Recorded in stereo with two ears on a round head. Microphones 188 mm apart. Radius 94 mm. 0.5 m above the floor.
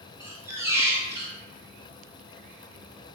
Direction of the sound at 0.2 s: 10° right (ahead or behind).